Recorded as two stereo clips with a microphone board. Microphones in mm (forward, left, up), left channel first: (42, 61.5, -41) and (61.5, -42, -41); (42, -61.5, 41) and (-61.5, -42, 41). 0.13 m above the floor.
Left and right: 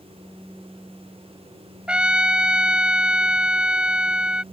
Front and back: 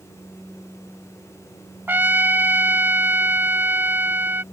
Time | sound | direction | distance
1.9 | a trumpet | 145° right | ?